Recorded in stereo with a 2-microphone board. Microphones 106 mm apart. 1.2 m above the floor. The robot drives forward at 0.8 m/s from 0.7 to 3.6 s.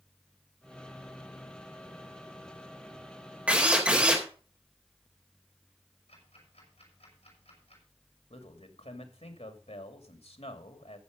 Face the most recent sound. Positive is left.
turn(degrees=80)